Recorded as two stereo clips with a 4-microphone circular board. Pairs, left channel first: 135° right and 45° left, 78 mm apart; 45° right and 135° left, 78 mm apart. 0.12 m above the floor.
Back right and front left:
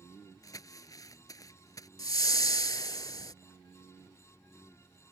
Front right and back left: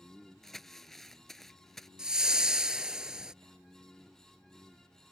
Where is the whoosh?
145° right.